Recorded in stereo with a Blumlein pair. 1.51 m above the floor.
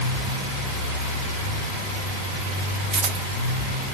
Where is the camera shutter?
30° right, 1.2 m.